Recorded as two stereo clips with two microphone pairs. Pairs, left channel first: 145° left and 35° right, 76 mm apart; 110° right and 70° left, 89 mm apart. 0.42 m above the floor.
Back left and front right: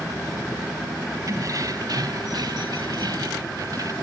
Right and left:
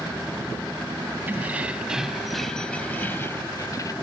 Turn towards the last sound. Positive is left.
turn(degrees=-70)